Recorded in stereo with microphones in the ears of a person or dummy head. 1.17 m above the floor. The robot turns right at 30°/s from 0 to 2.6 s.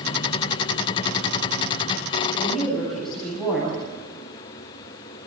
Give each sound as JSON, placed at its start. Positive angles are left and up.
{"t": 2.3, "sound": "a woman speaking", "side_deg": -10, "distance_m": 9.5}